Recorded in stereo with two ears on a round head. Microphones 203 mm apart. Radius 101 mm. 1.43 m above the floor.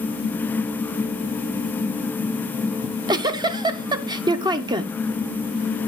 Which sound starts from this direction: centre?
A giggle, at 2.8 s.